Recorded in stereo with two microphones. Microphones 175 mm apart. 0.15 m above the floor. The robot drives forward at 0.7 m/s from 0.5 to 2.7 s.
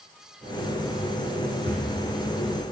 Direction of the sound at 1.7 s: 70° right (ahead or behind).